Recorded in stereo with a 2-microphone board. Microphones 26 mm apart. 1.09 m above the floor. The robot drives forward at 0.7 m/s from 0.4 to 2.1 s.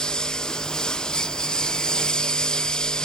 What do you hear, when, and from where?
0.0 s a lawn mower: 30° left (ahead or behind)